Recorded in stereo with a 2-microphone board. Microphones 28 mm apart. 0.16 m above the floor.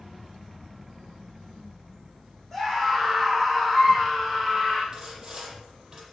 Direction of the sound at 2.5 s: Centre (ahead or behind).